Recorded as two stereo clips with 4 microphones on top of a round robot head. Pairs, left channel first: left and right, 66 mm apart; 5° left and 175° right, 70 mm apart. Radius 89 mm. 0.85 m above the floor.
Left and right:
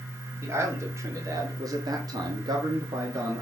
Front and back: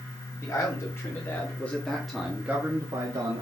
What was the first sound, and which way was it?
A man speaking, 40° right.